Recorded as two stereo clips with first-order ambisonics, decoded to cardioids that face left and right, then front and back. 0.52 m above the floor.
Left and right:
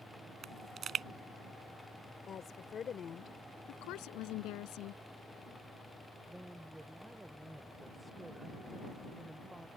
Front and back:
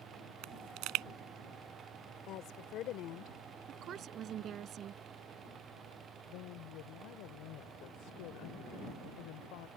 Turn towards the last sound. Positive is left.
turn(degrees=-5)